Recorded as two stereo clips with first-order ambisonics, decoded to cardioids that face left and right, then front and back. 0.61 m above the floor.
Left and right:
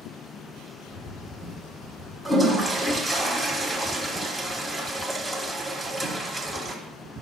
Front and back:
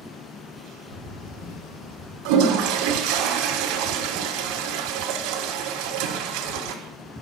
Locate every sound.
0.9 s a bird: 35° left, 4.5 m
2.2 s a toilet flushing: 170° right, 1.2 m